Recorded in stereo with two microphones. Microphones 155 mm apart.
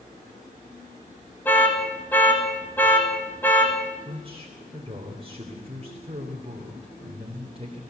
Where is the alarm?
10° left (ahead or behind), 4 m.